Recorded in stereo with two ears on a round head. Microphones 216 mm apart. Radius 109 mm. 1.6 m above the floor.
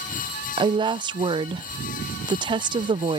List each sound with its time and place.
0.6 s a woman speaking: 20° right (ahead or behind)